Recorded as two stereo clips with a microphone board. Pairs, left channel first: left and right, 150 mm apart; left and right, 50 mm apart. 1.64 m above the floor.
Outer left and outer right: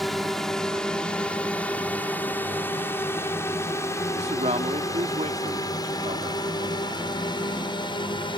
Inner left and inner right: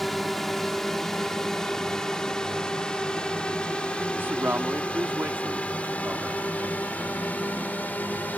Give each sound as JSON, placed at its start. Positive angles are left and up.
{"t": 0.0, "sound": "a drone", "side_deg": 0}
{"t": 4.1, "sound": "a man speaking", "side_deg": -50}